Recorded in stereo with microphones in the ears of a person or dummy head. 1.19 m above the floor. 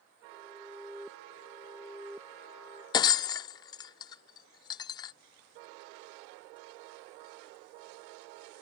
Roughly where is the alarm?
Centre.